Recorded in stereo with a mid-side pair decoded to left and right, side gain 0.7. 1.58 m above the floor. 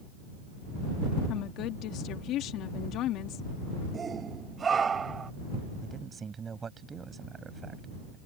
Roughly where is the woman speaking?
Ahead left.